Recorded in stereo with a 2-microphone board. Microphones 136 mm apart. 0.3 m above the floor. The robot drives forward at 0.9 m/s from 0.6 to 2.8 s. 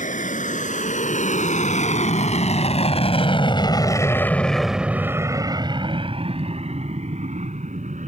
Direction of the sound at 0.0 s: 70° left (ahead or behind).